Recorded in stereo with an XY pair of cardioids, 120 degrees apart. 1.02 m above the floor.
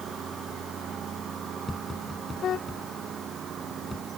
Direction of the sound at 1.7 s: 15° left.